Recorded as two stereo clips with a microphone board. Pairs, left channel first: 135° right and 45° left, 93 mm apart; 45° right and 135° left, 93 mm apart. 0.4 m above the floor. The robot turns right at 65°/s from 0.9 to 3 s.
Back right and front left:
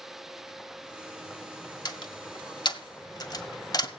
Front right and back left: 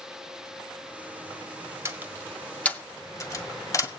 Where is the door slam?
170° right, 1.7 m; by 3.9 s 95° right, 1.7 m.